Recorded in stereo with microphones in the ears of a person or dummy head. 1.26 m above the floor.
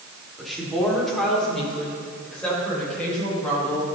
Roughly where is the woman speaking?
Centre.